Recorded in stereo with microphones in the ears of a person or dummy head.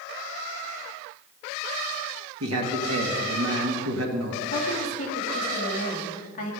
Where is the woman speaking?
30° left (ahead or behind), 2.5 m.